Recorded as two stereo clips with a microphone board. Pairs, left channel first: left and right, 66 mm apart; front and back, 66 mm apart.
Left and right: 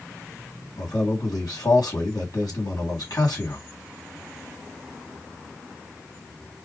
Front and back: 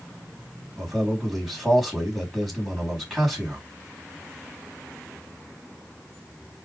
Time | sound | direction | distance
0.8 | a man speaking | 95° left | 3 m